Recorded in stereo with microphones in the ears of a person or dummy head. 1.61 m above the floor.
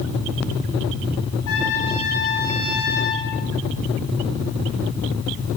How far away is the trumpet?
About 8 m.